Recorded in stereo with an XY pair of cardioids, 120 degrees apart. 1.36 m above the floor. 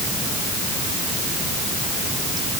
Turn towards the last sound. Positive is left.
No sound to turn to.